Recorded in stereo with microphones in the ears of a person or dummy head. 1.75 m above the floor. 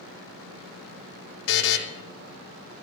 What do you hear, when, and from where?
1.5 s a buzzer: 75° left (ahead or behind), 1.4 m